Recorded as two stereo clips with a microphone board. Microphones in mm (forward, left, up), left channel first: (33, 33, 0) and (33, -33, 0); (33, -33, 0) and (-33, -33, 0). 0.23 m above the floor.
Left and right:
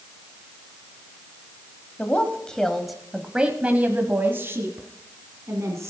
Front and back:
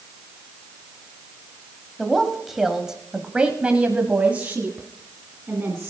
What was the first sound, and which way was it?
A woman speaking, 85° left.